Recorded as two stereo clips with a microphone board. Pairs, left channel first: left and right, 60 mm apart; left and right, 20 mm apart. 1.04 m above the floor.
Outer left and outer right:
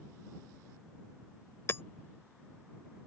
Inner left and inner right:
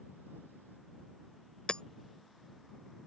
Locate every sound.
1.7 s hammering: 45° left (ahead or behind)